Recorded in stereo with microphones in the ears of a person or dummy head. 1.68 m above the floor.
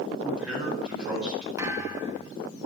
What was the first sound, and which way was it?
A man speaking, 10° right (ahead or behind).